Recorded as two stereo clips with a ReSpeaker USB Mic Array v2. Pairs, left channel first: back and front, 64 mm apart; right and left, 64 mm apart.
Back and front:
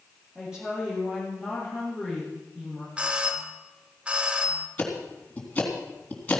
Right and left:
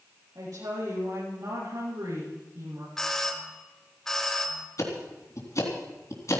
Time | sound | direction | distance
0.3 | a woman speaking | 80° left | 7 m
3.0 | a doorbell | 25° right | 1.5 m
4.8 | ticking | 115° right | 3.5 m